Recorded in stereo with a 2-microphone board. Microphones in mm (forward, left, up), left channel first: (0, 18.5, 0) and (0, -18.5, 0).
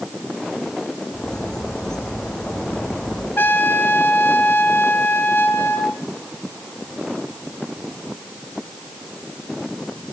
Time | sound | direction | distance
1.1 | a bird | 15° left (ahead or behind) | 8 m
3.4 | a trumpet | 70° left (ahead or behind) | 2.5 m